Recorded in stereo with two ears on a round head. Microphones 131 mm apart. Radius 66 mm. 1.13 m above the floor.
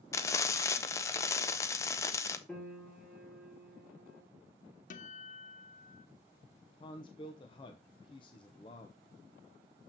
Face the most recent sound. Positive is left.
turn(degrees=35)  # may be behind; listen again after turning